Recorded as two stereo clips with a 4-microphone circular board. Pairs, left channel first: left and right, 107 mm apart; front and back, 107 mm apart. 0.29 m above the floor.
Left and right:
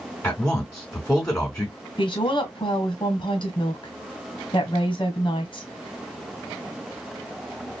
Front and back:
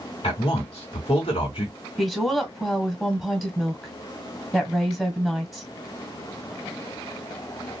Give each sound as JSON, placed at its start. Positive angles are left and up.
{"t": 0.2, "sound": "a man speaking", "azimuth_deg": 30, "distance_m": 3.0}
{"t": 2.0, "sound": "a woman speaking", "azimuth_deg": 90, "distance_m": 1.5}